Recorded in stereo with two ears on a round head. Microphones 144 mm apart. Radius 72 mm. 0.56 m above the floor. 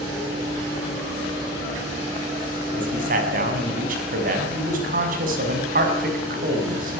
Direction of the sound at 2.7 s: 55° right (ahead or behind).